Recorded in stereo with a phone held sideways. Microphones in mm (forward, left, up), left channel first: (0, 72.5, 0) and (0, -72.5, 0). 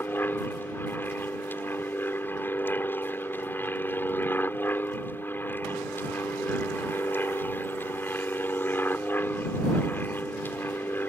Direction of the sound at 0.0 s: 15° left (ahead or behind).